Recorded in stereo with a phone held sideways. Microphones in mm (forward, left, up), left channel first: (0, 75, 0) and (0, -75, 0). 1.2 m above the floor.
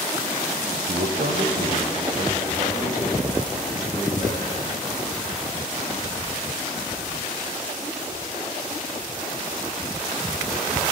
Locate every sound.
0.9 s a man speaking: 70° right (ahead or behind), 0.5 m; by 4.8 s 40° right (ahead or behind), 4.5 m